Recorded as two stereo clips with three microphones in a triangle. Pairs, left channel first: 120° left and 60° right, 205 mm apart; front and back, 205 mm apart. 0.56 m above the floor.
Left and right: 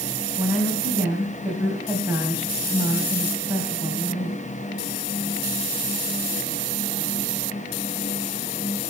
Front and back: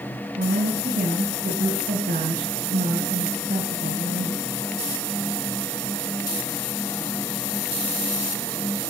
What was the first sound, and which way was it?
A woman speaking, 140° right.